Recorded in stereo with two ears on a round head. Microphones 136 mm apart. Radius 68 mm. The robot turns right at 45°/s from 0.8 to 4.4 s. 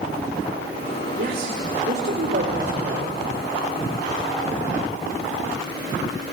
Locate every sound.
1.2 s a man speaking: 120° right, 2.5 m; by 3.2 s 30° right, 2.5 m